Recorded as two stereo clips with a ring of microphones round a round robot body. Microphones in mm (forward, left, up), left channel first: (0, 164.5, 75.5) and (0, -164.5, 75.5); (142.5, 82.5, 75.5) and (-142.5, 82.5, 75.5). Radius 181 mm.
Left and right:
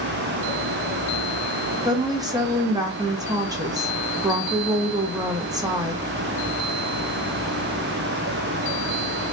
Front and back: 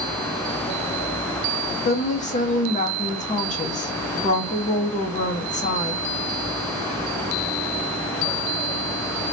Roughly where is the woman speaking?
Ahead right.